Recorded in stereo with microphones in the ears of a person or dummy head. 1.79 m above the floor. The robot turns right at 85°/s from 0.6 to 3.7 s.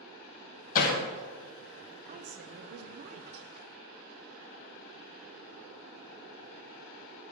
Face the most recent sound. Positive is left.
turn(degrees=-5)